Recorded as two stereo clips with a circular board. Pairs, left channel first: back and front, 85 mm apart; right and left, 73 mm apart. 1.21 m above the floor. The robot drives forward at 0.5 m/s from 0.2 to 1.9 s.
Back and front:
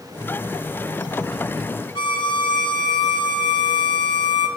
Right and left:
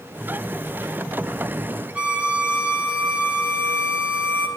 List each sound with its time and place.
1.9 s a violin: 160° left, 3.5 m